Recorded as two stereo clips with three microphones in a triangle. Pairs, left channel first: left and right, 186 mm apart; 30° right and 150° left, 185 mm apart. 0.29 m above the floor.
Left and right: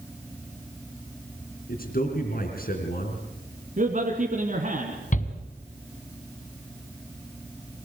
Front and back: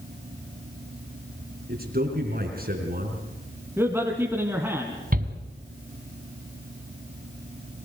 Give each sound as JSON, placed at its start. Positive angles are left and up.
{"t": 1.7, "sound": "a man speaking", "azimuth_deg": 120, "distance_m": 3.5}
{"t": 3.8, "sound": "a man speaking", "azimuth_deg": -130, "distance_m": 2.5}
{"t": 5.1, "sound": "a shout", "azimuth_deg": 125, "distance_m": 2.5}